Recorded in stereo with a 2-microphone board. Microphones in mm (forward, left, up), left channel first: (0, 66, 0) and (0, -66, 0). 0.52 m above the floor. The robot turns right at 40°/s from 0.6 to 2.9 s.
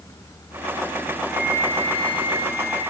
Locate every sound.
1.3 s a flute: straight behind, 6.5 m; by 2.8 s 120° right, 6.5 m